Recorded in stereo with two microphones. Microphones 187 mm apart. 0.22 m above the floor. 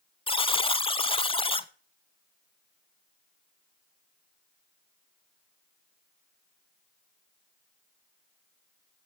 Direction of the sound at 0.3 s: 30° left (ahead or behind).